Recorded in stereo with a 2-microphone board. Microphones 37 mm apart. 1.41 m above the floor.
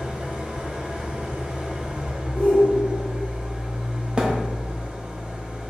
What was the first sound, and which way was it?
An engine running, 20° right (ahead or behind).